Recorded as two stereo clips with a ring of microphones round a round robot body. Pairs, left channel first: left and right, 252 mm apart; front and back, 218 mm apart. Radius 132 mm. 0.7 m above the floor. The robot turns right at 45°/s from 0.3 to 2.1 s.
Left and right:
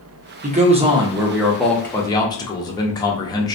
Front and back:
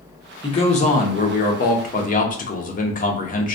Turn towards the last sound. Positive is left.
turn(degrees=25)